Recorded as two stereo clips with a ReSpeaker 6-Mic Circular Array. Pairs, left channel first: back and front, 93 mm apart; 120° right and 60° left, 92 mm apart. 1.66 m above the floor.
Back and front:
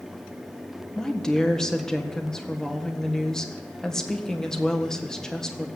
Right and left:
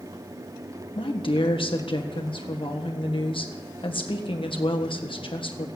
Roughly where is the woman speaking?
Right.